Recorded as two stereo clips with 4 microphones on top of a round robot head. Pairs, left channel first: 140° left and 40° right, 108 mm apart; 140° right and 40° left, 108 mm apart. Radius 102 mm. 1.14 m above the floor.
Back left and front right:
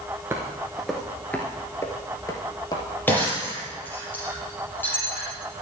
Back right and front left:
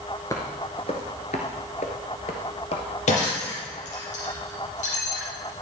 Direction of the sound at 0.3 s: 90° right.